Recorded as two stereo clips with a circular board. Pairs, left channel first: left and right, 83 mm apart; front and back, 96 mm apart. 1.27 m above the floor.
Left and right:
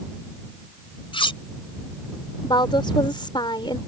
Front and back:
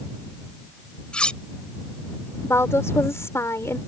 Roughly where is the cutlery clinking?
Left.